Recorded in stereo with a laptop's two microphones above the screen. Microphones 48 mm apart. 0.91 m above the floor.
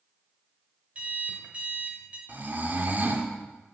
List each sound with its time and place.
0.9 s an alarm clock: 30° right (ahead or behind), 1.6 m
2.3 s snoring: 45° right (ahead or behind), 1.6 m